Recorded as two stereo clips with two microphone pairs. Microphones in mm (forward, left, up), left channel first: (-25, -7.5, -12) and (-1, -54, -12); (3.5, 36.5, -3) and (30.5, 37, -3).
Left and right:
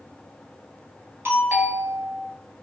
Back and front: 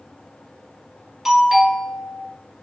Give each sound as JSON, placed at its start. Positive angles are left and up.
{"t": 1.2, "sound": "a doorbell", "azimuth_deg": -65, "distance_m": 1.7}